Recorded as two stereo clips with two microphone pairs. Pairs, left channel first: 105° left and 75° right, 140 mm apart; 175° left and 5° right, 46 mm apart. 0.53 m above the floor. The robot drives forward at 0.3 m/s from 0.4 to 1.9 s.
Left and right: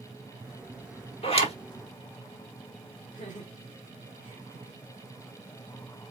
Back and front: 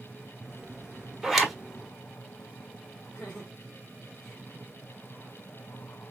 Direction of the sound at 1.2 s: 80° left.